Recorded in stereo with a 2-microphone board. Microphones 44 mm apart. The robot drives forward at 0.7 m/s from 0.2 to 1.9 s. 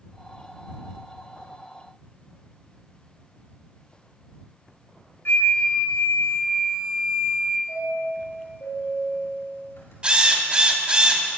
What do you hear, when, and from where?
5.2 s a flute: 60° left (ahead or behind), 1.5 m
7.7 s a chime: 65° left (ahead or behind), 4.5 m
10.0 s a drill: 25° right (ahead or behind), 1.8 m